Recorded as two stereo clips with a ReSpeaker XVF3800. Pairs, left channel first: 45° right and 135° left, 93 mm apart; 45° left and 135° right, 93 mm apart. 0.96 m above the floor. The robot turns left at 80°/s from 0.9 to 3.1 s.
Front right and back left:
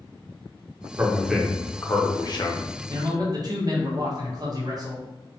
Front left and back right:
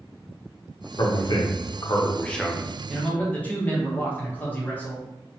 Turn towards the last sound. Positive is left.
turn(degrees=110)